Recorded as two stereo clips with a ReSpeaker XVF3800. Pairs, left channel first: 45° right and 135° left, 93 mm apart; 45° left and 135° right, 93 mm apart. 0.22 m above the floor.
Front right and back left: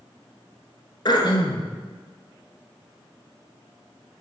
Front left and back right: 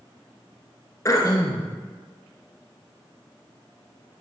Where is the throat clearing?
10° right, 0.8 m.